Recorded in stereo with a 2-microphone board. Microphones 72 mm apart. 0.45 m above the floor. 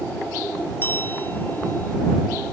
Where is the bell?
25° left (ahead or behind).